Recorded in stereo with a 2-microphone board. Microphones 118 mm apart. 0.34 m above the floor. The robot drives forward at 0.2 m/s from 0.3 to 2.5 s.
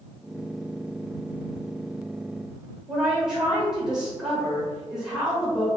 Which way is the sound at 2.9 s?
5° right (ahead or behind).